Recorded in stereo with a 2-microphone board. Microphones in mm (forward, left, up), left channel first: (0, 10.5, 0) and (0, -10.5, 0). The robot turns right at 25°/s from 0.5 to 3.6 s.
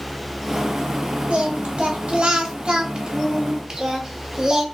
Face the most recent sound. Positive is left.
turn(degrees=-45)